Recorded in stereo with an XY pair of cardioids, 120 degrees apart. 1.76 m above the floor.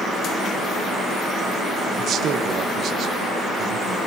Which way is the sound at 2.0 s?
55° right.